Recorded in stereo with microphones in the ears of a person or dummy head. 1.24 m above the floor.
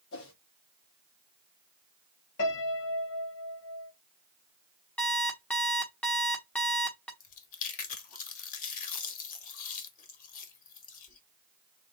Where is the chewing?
45° left (ahead or behind), 1.2 m.